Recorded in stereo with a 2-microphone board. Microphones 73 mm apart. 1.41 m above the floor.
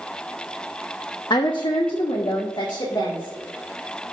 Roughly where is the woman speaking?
Left.